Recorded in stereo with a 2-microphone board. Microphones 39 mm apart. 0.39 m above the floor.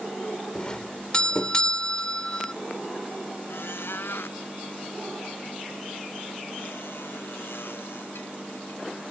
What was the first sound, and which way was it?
A doorbell, 25° left (ahead or behind).